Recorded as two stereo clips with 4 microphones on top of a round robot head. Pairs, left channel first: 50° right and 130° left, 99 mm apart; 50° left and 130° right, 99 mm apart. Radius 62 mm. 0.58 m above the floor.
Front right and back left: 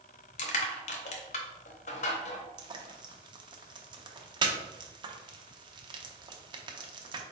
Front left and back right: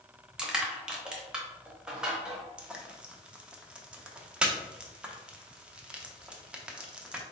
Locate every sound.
0.4 s crushing: 45° right, 0.8 m
2.6 s frying: 155° left, 0.7 m